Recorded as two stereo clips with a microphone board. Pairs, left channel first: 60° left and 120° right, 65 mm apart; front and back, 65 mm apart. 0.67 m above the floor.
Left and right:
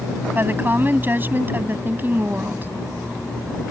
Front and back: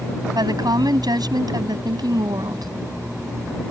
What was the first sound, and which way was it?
A woman speaking, straight behind.